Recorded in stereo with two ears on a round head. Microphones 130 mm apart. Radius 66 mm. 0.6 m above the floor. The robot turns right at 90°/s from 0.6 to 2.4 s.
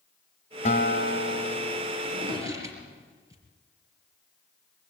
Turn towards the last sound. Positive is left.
turn(degrees=-20)  # may be behind; listen again after turning